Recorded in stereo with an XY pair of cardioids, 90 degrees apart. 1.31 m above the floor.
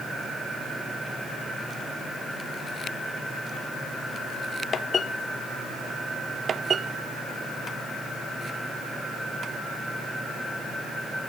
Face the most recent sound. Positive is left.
No sound to turn to.